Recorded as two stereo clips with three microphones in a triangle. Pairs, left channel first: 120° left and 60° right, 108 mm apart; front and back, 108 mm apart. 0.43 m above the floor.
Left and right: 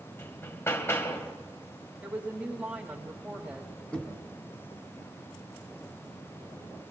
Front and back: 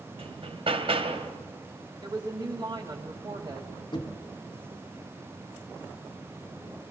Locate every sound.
0.2 s hammering: straight behind, 1.9 m
2.0 s a woman speaking: 135° right, 2.5 m
3.9 s knocking: 40° left, 3 m